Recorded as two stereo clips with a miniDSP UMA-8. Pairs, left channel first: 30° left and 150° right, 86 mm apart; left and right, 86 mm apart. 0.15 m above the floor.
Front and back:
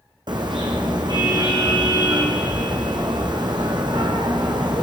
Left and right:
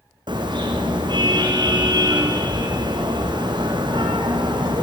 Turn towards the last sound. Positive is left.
turn(degrees=-120)